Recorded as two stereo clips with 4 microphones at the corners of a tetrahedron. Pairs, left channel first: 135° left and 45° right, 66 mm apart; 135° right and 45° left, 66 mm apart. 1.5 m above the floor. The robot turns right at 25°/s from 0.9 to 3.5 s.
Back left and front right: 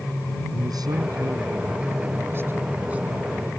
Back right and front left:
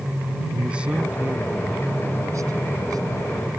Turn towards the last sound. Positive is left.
turn(degrees=35)